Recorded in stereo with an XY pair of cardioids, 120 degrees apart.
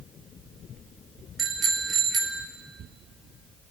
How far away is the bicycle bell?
About 3 m.